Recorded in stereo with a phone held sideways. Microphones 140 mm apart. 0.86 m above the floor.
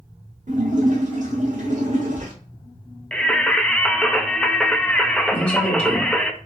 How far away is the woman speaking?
About 2 m.